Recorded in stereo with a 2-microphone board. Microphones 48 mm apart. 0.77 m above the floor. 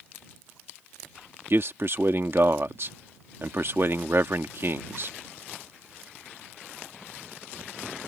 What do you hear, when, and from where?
1.5 s a man speaking: 55° right (ahead or behind)